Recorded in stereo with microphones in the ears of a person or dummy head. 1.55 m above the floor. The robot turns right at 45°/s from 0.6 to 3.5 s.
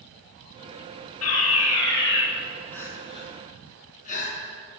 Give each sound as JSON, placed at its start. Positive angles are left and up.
{"t": 1.2, "sound": "a fire alarm", "azimuth_deg": 80, "distance_m": 9.0}
{"t": 2.7, "sound": "crying", "side_deg": 5, "distance_m": 7.0}